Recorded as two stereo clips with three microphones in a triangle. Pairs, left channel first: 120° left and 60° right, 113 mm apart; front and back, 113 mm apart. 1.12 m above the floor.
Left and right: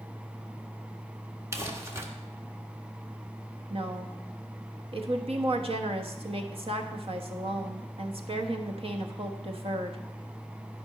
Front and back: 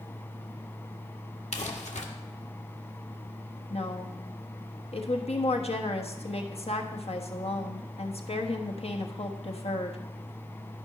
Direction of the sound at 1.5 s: 5° left.